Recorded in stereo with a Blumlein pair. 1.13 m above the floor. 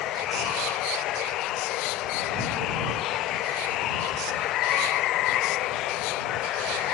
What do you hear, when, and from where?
0.0 s running water: 35° left